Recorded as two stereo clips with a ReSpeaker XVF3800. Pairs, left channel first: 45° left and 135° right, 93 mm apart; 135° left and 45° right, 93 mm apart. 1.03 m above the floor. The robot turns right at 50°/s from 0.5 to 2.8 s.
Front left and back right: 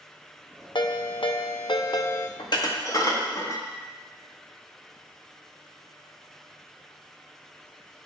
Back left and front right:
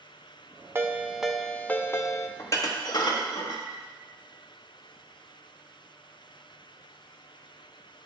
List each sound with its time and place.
0.8 s a ringtone: 20° left, 0.5 m; by 2.3 s 95° left, 0.5 m
2.4 s dishes clattering: 75° left, 0.9 m; by 3.7 s 95° left, 0.9 m